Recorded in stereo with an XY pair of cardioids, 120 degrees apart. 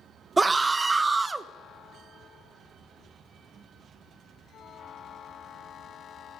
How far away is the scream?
About 0.5 m.